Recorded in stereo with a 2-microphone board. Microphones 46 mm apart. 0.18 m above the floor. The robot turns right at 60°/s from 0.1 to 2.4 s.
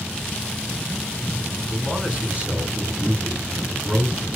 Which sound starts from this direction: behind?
A man speaking, at 1.7 s.